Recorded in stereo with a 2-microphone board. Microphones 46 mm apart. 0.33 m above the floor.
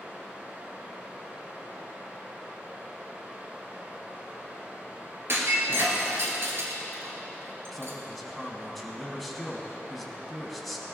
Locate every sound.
0.0 s running water: 40° right (ahead or behind), 3 m
5.3 s breaking glass: 60° right (ahead or behind), 2 m
7.7 s a man speaking: centre (ahead or behind), 2.5 m